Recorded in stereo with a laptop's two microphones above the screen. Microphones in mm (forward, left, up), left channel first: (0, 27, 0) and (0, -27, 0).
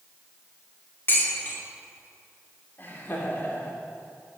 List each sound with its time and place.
1.1 s dishes clattering: 40° left (ahead or behind), 1.9 m
2.8 s laughter: 35° left (ahead or behind), 2.5 m